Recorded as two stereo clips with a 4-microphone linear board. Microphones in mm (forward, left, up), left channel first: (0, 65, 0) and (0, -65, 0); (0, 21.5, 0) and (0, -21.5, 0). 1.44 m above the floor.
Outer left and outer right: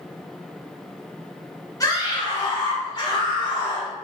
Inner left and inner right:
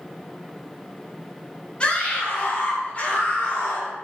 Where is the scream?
30° left (ahead or behind), 3 m; by 3.9 s 40° left (ahead or behind), 4 m.